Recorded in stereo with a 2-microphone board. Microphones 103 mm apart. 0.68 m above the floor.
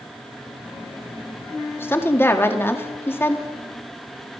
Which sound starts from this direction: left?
A woman speaking, at 1.8 s.